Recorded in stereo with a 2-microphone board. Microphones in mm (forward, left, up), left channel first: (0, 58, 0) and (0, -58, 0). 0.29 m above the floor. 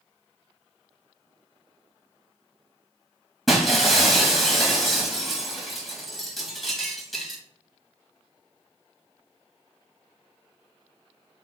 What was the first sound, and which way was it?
Breaking glass, centre (ahead or behind).